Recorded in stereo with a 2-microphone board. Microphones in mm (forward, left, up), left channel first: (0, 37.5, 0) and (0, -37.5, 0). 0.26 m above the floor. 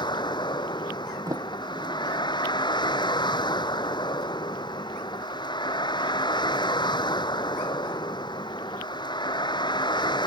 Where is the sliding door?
50° right (ahead or behind).